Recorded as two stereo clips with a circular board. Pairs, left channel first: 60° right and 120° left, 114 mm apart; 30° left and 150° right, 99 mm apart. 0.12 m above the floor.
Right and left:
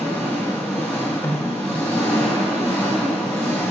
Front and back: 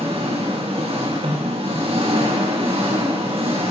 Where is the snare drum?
130° right, 5 m.